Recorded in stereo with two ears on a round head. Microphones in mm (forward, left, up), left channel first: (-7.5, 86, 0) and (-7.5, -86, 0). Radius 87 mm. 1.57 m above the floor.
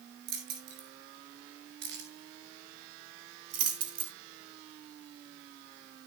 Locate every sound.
0.3 s keys jangling: 60° right (ahead or behind), 6.5 m; by 4.1 s 55° right (ahead or behind), 3.5 m